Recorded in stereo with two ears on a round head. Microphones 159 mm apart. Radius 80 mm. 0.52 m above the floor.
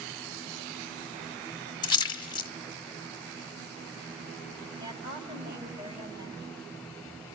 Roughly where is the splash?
Left.